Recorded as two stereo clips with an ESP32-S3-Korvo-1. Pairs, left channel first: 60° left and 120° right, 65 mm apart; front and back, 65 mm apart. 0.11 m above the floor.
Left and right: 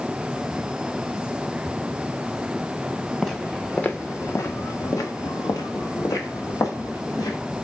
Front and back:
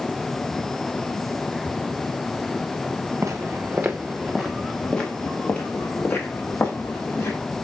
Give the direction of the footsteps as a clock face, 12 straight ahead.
7 o'clock.